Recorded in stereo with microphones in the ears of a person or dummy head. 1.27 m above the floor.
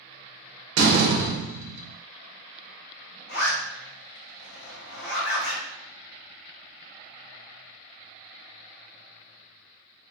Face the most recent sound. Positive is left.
turn(degrees=55)  # may be behind; listen again after turning